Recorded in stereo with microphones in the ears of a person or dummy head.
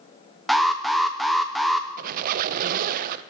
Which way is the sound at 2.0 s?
50° right (ahead or behind).